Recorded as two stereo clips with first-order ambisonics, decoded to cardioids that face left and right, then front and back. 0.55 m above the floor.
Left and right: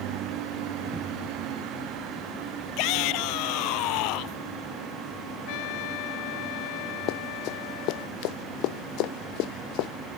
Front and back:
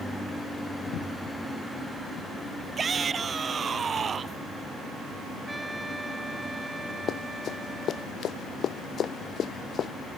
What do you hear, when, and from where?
2.8 s a shout: 110° left; by 4.4 s 115° left
5.5 s a trumpet: 95° left
7.1 s running footsteps: 60° left; by 9.9 s 65° left